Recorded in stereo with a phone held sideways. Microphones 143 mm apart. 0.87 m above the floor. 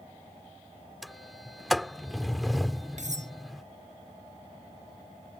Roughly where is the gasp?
No gasp in this recording.